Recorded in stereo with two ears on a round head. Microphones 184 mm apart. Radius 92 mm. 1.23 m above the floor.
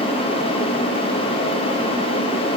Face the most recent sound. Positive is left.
No sound to turn to.